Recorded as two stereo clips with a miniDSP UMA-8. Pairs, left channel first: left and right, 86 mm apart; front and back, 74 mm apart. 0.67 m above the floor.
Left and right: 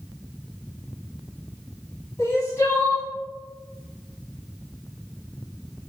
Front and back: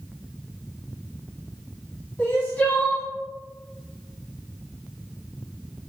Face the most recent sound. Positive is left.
turn(degrees=60)